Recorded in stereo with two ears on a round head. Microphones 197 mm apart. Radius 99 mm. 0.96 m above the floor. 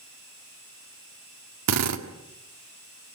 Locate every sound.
1.7 s a drill: 85° right, 1.8 m